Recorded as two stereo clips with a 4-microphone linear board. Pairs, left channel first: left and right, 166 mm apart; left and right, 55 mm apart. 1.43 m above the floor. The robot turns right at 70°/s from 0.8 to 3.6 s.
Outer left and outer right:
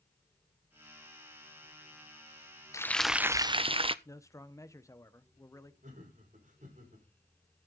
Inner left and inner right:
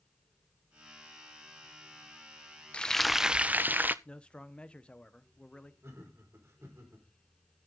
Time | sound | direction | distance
2.7 | frying | 160° left | 0.5 m
4.0 | a man speaking | 20° left (ahead or behind) | 1.1 m
5.8 | laughter | 50° right (ahead or behind) | 5.5 m